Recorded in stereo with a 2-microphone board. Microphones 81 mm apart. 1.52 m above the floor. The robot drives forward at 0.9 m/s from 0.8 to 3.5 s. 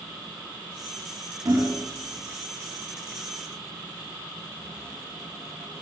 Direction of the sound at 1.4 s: 50° right (ahead or behind).